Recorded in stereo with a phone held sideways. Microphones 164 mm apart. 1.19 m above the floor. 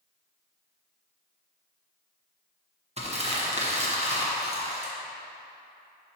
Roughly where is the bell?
No bell in this recording.